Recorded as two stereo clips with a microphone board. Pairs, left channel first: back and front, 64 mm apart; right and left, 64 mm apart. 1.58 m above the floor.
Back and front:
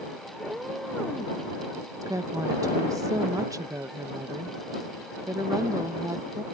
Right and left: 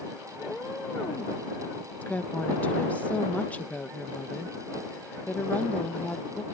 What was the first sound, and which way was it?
A cat meowing, 60° right.